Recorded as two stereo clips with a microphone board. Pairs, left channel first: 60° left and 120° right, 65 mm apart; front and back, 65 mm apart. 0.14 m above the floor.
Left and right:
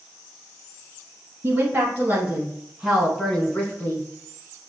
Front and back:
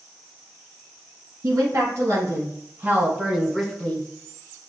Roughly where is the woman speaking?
Behind.